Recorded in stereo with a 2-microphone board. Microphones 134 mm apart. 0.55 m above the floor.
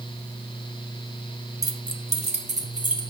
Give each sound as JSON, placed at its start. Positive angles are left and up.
{"t": 1.6, "sound": "keys jangling", "side_deg": -25, "distance_m": 0.7}